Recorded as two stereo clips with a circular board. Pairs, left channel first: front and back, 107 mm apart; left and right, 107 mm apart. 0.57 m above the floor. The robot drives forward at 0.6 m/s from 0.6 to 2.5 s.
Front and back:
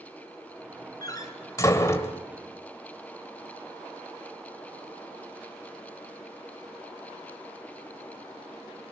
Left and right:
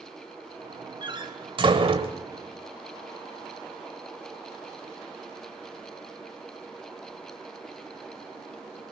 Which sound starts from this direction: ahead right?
A door slam, at 1.0 s.